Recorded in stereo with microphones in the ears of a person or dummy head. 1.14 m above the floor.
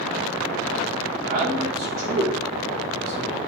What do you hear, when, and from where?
1.3 s a man speaking: 50° right (ahead or behind), 2.5 m